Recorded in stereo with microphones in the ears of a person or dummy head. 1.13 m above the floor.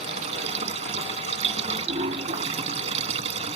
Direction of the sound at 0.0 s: 40° right (ahead or behind).